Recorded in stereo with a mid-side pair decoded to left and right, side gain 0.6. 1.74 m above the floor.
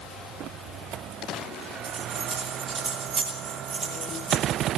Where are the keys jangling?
40° right, 10 m; by 4.7 s 50° right, 10 m.